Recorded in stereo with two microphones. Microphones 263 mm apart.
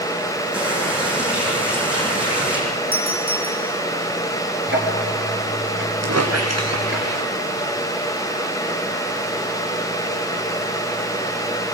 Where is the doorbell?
35° right (ahead or behind), 5 m.